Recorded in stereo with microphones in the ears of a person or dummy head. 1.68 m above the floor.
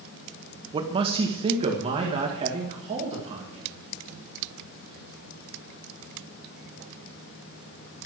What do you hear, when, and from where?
0.7 s a man speaking: 25° right (ahead or behind), 0.9 m; by 3.7 s 30° right (ahead or behind), 3.5 m